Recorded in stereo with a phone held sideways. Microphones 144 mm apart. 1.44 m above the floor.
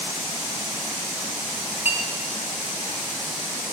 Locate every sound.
1.9 s a clink: 15° right (ahead or behind), 1.1 m